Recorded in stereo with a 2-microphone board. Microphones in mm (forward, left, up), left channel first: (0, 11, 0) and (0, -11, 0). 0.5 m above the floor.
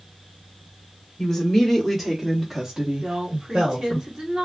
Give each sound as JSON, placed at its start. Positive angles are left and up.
{"t": 1.2, "sound": "a woman speaking", "side_deg": 30, "distance_m": 1.1}
{"t": 3.0, "sound": "a woman speaking", "side_deg": -25, "distance_m": 1.3}